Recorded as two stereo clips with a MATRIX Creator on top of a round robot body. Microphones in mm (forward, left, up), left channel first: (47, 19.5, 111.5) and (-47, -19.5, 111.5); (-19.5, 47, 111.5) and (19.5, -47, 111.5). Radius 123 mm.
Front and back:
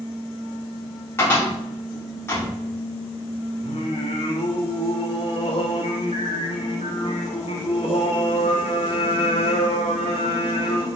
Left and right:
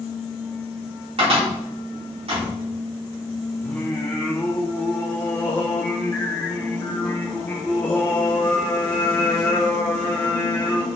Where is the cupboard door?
45° right, 4 m.